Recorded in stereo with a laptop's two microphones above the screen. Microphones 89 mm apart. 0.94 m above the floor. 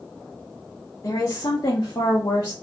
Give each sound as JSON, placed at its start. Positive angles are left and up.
{"t": 1.0, "sound": "a woman speaking", "side_deg": 35, "distance_m": 0.9}